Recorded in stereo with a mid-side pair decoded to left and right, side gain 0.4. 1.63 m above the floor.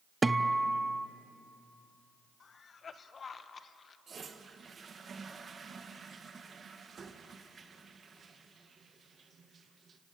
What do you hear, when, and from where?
0.2 s a guitar: 20° right, 0.9 m
2.4 s a cough: 50° left, 1.5 m
4.1 s a toilet flushing: 45° right, 1.9 m